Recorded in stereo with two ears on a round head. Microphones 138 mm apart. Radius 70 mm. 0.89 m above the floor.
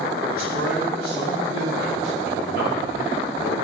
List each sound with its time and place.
0.3 s a man speaking: 80° right, 6.5 m; by 3.5 s 70° right (ahead or behind), 4.5 m